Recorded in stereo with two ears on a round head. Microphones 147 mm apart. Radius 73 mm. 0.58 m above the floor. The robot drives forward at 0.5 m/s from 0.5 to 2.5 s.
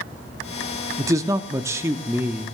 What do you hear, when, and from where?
1.0 s a man speaking: 20° right (ahead or behind), 0.6 m; by 2.5 s 15° right (ahead or behind), 0.9 m